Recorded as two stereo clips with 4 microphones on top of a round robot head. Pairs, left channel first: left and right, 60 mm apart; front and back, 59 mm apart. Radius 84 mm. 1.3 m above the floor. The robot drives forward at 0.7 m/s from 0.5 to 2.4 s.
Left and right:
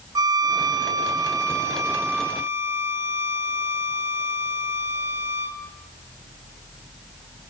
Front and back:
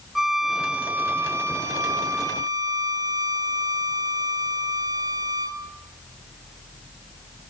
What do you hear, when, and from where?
0.1 s a violin: 95° right, 0.9 m; by 5.6 s 150° right, 1.6 m